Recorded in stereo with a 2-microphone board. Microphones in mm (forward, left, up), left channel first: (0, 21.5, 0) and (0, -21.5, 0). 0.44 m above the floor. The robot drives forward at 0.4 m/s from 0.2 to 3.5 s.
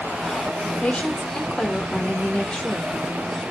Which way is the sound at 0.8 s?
30° left (ahead or behind).